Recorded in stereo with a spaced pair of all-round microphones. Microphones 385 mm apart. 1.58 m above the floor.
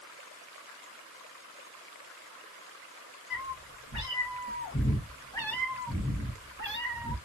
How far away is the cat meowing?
About 1.5 m.